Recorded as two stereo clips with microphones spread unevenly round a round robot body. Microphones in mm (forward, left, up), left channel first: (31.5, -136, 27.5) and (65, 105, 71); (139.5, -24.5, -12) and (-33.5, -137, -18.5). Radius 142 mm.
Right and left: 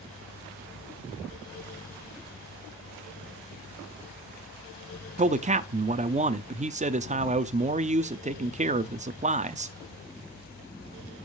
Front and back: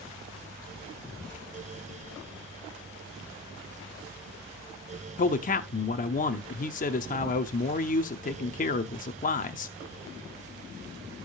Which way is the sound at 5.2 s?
25° left.